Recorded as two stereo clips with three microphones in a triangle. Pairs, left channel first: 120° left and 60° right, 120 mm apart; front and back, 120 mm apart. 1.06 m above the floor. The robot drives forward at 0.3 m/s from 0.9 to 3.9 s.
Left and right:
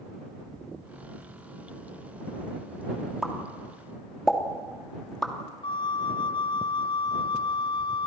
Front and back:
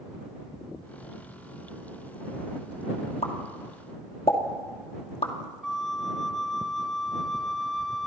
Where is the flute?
85° left, 0.6 m.